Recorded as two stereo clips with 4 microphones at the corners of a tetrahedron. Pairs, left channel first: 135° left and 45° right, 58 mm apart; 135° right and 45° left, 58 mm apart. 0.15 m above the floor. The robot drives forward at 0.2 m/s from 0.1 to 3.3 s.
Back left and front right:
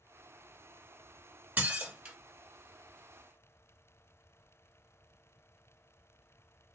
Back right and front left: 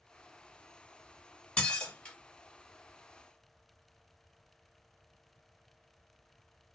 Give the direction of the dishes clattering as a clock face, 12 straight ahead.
3 o'clock.